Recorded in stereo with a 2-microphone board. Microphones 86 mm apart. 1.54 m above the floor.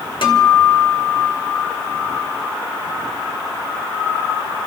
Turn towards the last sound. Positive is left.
turn(degrees=70)  # may be behind; listen again after turning